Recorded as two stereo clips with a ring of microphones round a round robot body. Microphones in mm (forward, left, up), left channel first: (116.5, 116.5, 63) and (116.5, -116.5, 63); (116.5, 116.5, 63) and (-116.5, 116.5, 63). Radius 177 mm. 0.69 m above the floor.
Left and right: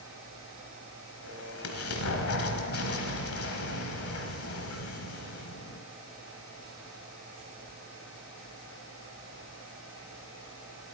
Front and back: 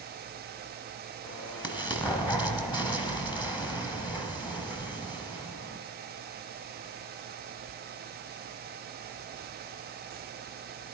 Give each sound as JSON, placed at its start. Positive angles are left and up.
{"t": 1.2, "sound": "an explosion", "azimuth_deg": 70, "distance_m": 1.2}